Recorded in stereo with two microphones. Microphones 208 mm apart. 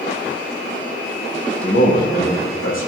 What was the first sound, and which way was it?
A man speaking, 70° left (ahead or behind).